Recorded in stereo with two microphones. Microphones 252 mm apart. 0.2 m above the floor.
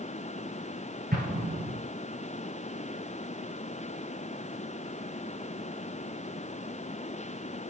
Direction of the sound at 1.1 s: 35° right (ahead or behind).